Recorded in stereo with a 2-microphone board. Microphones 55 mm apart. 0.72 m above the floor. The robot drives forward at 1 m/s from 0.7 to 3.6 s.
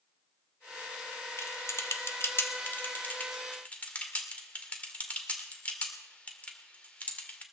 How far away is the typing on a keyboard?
About 1.2 m.